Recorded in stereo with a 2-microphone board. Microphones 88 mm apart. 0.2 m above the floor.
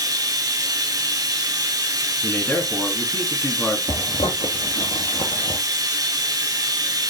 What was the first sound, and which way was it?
Running water, 45° right (ahead or behind).